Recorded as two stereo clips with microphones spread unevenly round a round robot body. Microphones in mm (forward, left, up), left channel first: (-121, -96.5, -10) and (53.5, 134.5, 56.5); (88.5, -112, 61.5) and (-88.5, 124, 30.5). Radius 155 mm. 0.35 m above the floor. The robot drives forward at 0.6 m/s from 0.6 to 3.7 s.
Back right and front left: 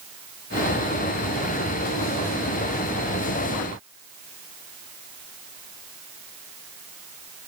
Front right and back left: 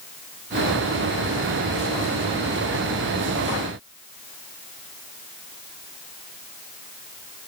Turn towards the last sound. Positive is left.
No sound to turn to.